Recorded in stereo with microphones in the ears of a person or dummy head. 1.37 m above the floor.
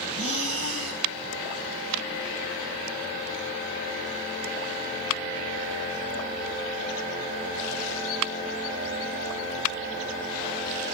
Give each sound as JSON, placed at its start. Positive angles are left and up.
{"t": 0.1, "sound": "breathing", "side_deg": -85, "distance_m": 2.5}